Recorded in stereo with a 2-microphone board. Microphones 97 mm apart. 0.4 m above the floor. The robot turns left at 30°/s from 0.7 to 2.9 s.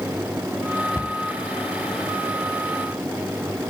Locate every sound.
0.9 s a cupboard door: 25° left (ahead or behind), 0.8 m; by 1.2 s 20° left (ahead or behind), 0.8 m